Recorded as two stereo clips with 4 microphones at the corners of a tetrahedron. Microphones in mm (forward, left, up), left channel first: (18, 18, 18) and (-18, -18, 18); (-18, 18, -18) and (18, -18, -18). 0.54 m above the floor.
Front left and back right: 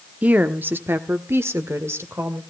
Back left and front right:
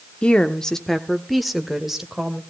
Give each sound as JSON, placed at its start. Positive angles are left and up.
{"t": 0.2, "sound": "a woman speaking", "azimuth_deg": -175, "distance_m": 0.9}